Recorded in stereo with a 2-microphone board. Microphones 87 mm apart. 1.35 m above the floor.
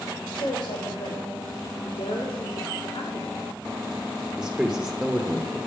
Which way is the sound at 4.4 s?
10° right (ahead or behind).